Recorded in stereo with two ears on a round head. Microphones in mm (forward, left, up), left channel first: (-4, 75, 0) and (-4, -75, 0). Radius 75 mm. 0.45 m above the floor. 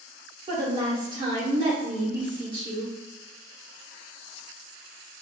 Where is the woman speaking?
30° right (ahead or behind), 1.2 m.